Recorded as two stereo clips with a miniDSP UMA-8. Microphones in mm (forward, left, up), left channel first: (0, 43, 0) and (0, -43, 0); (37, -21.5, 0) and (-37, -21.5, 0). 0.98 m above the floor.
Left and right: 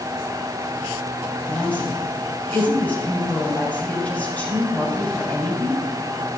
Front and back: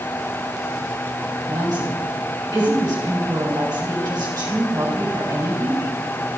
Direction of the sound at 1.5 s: 160° left.